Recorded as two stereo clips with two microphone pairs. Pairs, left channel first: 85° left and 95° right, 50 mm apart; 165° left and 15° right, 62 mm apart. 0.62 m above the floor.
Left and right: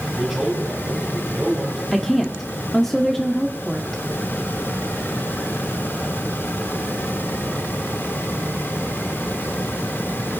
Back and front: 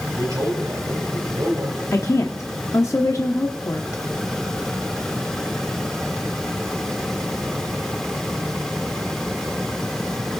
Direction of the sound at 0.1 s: 10° right.